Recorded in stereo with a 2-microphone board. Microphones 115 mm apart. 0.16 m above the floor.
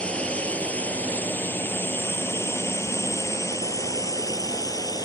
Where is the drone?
10° left (ahead or behind); by 5.0 s 35° left (ahead or behind).